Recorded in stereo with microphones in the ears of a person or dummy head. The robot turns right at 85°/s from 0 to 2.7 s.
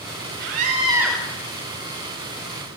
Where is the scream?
70° right, 5 m; by 1.2 s straight ahead, 5 m.